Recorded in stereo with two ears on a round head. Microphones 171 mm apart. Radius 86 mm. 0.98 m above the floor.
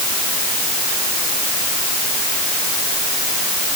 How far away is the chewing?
No chewing in this recording.